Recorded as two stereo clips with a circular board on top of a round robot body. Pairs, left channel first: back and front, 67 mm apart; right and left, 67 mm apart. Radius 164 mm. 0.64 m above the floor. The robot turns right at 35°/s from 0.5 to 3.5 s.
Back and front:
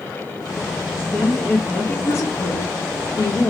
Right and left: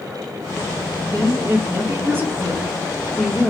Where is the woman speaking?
100° left, 1.1 m; by 3.5 s 175° right, 1.1 m.